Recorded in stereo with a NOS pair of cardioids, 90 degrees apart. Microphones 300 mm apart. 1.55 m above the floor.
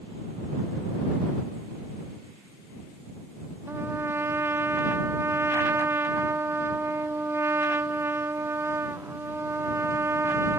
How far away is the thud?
I don't hear a thud.